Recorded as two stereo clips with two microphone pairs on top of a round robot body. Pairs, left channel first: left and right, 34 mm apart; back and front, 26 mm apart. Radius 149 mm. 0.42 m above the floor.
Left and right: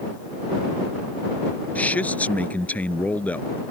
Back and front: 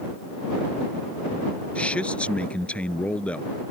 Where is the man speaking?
135° left.